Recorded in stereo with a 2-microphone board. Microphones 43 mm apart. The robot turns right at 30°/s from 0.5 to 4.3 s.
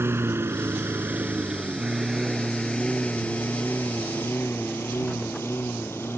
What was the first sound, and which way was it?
A lawn mower, 70° right (ahead or behind).